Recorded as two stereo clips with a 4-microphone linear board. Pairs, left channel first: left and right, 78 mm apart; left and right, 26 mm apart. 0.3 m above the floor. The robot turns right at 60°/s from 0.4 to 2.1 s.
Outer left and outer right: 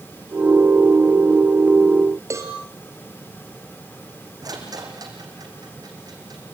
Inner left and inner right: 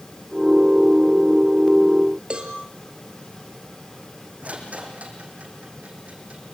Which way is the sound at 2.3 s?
40° right (ahead or behind).